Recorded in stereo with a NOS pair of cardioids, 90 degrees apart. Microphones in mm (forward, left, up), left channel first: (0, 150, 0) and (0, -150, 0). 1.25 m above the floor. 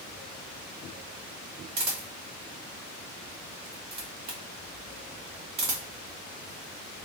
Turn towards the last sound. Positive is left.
turn(degrees=-65)